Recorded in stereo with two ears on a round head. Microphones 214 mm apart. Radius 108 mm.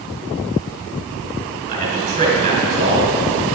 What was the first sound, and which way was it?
A man speaking, 40° right (ahead or behind).